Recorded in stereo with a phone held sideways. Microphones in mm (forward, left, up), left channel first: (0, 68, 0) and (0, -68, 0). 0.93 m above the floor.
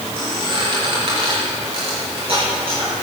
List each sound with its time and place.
0.2 s a squeak: 50° right (ahead or behind), 6 m